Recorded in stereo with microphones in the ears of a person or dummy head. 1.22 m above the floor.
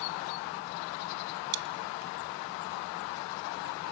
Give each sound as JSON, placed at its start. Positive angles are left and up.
{"t": 1.5, "sound": "chewing", "side_deg": -55, "distance_m": 1.3}